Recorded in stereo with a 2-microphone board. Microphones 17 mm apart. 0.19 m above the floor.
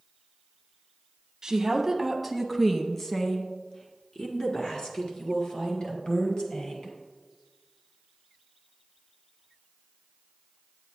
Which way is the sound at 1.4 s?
25° right (ahead or behind).